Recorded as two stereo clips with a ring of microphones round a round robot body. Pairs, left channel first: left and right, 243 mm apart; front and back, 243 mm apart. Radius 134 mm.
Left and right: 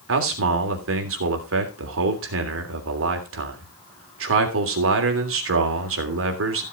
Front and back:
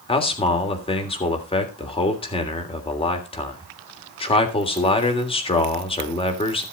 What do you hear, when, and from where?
0.1 s a man speaking: 65° right, 3 m